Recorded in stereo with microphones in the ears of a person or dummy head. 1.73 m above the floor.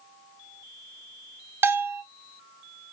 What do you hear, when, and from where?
1.6 s a bell: 10° right (ahead or behind), 0.6 m